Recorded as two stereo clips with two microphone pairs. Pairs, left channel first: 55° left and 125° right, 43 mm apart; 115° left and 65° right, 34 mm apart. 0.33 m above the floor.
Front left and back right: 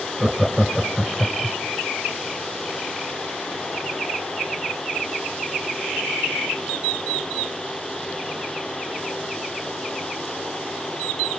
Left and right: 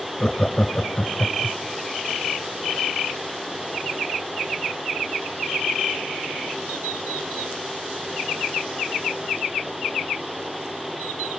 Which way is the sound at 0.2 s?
165° left.